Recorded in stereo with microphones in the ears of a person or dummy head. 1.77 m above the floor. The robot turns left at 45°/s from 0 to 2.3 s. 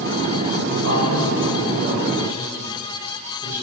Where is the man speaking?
105° right, 9.5 m; by 3.6 s 170° right, 9.5 m.